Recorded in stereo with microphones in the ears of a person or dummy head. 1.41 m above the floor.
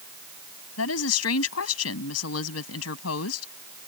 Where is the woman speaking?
90° left.